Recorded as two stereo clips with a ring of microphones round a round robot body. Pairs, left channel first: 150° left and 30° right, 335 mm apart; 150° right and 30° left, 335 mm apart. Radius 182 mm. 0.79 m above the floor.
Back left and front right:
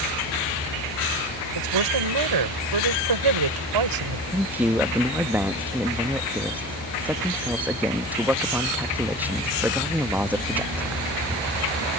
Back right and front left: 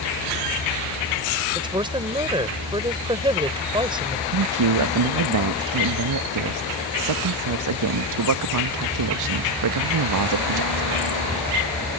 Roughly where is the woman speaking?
Ahead right.